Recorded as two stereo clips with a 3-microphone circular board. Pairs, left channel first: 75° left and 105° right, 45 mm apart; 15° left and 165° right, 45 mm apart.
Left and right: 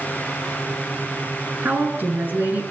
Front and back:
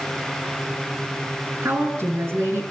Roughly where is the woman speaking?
Behind right.